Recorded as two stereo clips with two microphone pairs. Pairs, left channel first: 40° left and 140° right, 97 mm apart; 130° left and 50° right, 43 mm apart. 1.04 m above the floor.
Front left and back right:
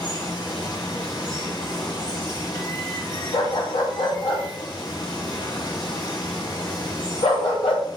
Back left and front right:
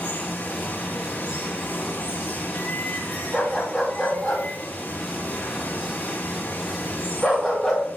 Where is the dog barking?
40° left, 3 m.